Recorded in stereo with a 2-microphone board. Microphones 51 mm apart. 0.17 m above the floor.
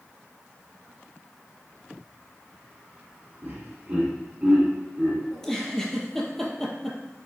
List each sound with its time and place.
3.4 s laughter: 30° right (ahead or behind), 1.2 m
5.3 s a giggle: 5° left (ahead or behind), 0.7 m